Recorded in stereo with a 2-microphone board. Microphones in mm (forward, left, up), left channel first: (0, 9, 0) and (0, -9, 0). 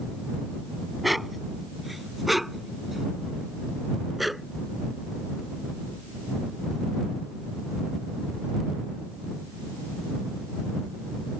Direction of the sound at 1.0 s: 5° right (ahead or behind).